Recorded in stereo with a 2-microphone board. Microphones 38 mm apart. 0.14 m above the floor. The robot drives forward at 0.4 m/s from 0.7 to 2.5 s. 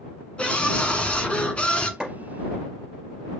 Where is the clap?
10° right (ahead or behind), 2.5 m.